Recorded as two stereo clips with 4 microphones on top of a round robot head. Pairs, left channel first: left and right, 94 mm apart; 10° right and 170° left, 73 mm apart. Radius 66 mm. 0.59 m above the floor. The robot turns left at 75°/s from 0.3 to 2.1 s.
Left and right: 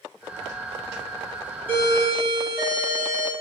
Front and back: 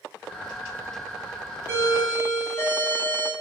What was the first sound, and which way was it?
A doorbell, 35° left.